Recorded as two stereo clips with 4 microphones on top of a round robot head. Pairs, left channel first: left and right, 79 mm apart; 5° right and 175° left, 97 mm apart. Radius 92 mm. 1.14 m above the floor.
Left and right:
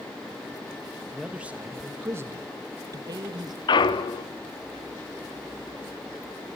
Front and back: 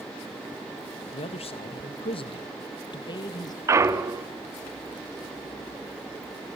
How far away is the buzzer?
No buzzer in this recording.